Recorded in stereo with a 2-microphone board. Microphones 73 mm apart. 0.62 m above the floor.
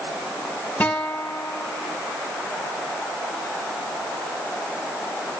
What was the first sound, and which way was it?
A guitar, 20° left (ahead or behind).